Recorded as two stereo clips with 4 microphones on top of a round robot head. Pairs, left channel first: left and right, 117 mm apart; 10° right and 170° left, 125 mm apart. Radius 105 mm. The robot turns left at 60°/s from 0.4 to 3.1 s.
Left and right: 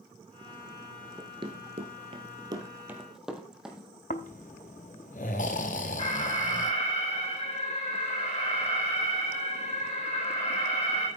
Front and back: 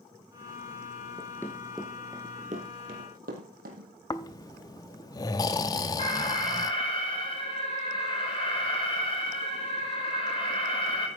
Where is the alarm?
35° left, 4 m.